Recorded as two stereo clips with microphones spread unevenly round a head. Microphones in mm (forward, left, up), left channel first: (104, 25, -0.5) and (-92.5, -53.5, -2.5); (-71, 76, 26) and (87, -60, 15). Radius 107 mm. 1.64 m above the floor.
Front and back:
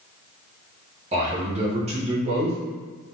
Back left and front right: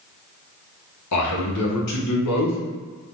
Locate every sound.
1.1 s a man speaking: 140° left, 1.0 m